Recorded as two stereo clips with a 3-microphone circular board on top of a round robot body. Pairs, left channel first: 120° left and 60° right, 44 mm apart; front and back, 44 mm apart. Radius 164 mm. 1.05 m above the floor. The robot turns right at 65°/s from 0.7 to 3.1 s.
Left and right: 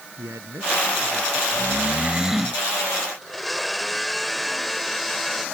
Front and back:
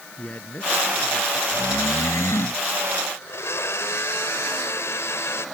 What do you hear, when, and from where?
0.2 s a man speaking: 50° right; by 1.4 s 5° right
1.5 s snoring: 30° right; by 2.6 s 40° left
3.2 s a blender: 30° left